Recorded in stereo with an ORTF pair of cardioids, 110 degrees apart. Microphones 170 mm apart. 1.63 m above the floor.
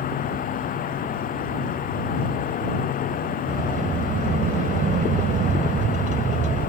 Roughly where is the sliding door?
Ahead right.